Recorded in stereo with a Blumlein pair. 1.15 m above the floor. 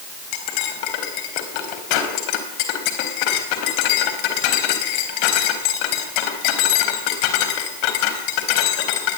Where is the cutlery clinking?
45° left, 4 m.